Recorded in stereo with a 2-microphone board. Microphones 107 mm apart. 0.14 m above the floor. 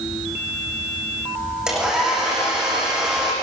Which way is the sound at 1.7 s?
5° right (ahead or behind).